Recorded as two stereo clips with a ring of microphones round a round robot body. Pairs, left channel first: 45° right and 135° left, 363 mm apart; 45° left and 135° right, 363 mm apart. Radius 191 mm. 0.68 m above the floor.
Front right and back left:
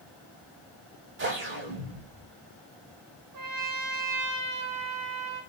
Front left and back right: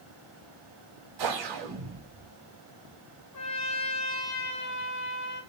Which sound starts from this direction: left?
A trumpet, at 3.3 s.